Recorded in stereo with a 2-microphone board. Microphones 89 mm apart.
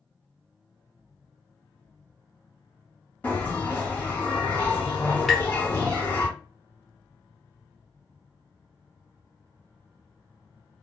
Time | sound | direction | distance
3.2 | a bell | 20° left (ahead or behind) | 1.3 m
5.3 | tapping | centre (ahead or behind) | 0.9 m